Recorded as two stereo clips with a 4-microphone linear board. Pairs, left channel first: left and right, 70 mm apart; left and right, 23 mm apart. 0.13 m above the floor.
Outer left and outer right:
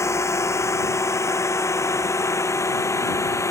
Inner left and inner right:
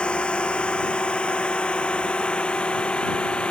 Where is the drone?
40° left (ahead or behind); by 3.5 s 45° left (ahead or behind).